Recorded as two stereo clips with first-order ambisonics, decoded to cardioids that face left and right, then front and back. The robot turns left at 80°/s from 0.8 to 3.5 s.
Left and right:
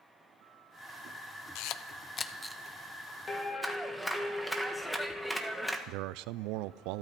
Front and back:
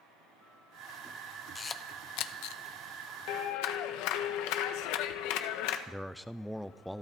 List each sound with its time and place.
1.6 s a camera shutter: 75° left, 0.8 m; by 2.6 s 10° right, 0.8 m
3.3 s a clap: 20° left, 1.5 m; by 5.8 s 5° left, 1.5 m
5.9 s a man speaking: 90° right, 0.6 m